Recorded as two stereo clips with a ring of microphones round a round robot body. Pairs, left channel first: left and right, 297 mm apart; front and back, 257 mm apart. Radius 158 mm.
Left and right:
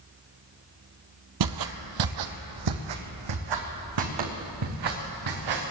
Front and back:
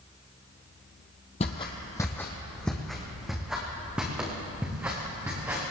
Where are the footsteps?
70° right, 0.9 m; by 5.7 s 95° right, 3.5 m.